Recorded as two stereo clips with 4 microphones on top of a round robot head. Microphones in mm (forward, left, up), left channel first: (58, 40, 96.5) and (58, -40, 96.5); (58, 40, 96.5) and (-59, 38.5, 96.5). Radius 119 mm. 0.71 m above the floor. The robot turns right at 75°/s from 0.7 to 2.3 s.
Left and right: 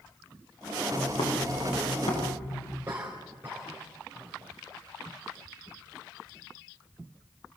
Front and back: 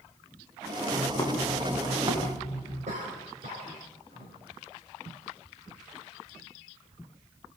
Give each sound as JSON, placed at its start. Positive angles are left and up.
{"t": 0.9, "sound": "footsteps", "azimuth_deg": 45, "distance_m": 6.5}
{"t": 2.9, "sound": "a cough", "azimuth_deg": -155, "distance_m": 4.0}